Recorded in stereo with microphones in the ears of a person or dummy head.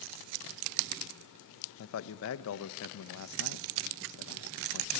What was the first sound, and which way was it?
A man speaking, 75° left (ahead or behind).